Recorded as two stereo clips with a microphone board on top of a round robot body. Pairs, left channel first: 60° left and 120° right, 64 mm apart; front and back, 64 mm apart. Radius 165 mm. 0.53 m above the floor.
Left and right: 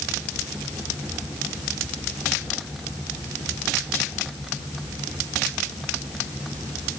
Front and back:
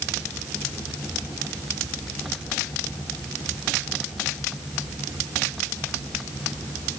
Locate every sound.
Only background noise.